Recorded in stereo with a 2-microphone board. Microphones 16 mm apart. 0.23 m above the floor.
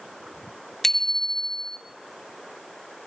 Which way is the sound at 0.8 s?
20° left (ahead or behind).